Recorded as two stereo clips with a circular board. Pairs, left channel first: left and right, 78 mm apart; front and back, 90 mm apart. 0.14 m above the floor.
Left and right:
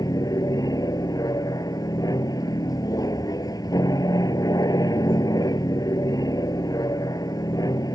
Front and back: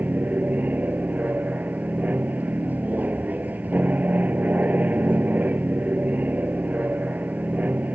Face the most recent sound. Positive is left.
turn(degrees=110)